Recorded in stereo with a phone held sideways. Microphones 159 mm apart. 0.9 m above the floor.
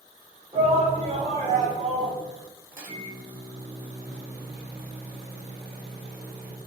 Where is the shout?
40° right (ahead or behind), 1.5 m; by 2.2 s 45° right (ahead or behind), 1.1 m.